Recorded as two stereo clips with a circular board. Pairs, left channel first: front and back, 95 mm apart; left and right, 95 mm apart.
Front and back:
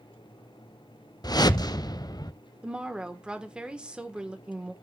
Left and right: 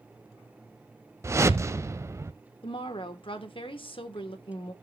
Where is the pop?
No pop in this recording.